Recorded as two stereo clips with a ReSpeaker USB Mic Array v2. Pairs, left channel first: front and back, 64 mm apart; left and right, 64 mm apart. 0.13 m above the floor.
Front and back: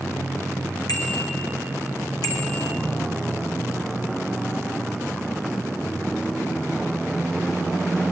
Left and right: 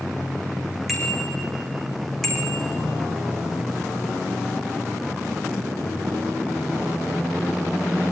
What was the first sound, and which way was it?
A bicycle bell, straight ahead.